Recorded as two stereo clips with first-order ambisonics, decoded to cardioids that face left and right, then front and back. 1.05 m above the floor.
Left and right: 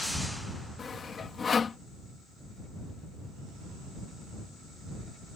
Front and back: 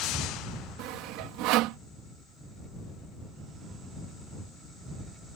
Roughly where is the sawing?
Behind.